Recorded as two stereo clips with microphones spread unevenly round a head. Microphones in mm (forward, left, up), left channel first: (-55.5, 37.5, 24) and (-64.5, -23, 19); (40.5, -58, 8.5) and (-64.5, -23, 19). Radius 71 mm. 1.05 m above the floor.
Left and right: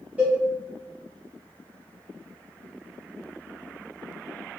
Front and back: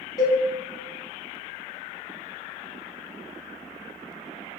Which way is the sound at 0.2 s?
35° right.